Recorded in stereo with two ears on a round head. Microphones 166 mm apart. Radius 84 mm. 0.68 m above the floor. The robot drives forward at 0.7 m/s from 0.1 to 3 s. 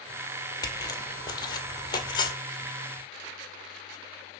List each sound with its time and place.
0.6 s footsteps: 20° left (ahead or behind), 1.1 m; by 2.3 s 25° left (ahead or behind), 1.2 m